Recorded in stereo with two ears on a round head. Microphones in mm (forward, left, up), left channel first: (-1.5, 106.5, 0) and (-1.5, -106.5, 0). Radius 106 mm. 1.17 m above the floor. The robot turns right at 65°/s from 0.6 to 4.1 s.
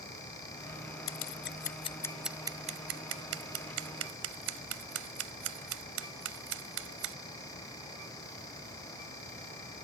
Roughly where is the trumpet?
No trumpet in this recording.